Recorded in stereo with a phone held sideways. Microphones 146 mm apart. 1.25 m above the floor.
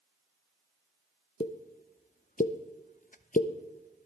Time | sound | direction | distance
1.4 | a pop | 65° left (ahead or behind) | 0.6 m